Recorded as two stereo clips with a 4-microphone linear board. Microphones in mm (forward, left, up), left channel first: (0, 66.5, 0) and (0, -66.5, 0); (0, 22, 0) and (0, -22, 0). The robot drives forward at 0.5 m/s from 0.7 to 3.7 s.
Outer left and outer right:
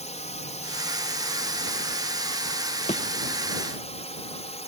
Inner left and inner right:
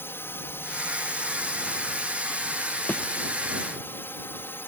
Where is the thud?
55° left (ahead or behind).